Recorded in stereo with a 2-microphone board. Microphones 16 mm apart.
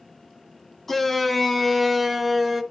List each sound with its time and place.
0.9 s a shout: 20° left (ahead or behind), 1.4 m; by 2.6 s 5° right (ahead or behind), 2 m